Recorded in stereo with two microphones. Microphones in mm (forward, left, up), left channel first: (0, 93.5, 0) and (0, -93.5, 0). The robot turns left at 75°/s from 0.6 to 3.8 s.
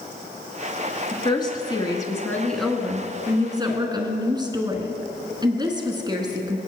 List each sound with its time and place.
1.1 s a woman speaking: 20° left (ahead or behind), 1.1 m; by 6.6 s 25° right (ahead or behind), 1.1 m